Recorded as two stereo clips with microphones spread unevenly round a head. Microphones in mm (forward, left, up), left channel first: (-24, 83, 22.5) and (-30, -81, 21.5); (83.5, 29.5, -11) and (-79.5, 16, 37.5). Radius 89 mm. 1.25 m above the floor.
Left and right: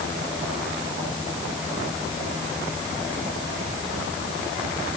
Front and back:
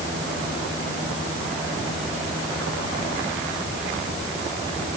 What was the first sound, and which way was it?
Only background noise.